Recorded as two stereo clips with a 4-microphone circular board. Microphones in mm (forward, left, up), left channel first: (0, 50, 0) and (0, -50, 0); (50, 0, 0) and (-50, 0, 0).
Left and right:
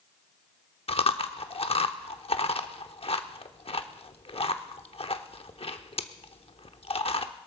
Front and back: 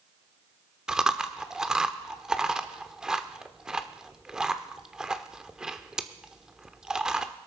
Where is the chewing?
95° left, 0.8 m.